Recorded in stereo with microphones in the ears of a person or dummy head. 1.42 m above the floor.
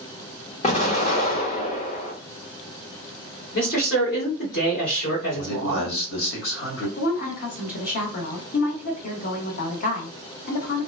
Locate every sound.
0.6 s an explosion: 35° left (ahead or behind), 0.8 m
3.5 s a man speaking: 65° left (ahead or behind), 1.6 m
5.3 s a man speaking: 75° left (ahead or behind), 1.2 m
7.0 s a woman speaking: 55° left (ahead or behind), 1.1 m